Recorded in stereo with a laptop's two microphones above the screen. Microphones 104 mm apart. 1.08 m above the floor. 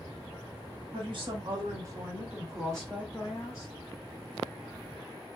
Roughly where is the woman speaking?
Right.